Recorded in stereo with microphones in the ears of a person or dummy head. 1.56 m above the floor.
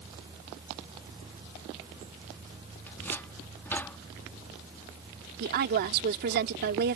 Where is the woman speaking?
55° right (ahead or behind).